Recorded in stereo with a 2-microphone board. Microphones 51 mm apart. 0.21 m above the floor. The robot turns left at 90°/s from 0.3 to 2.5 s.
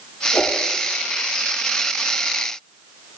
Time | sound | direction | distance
0.3 | a whoosh | 70° left (ahead or behind) | 7 m